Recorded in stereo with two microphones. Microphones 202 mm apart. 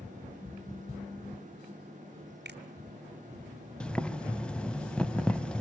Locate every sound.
2.5 s a finger snap: 60° right (ahead or behind), 1.5 m
3.8 s boiling: 5° left (ahead or behind), 0.7 m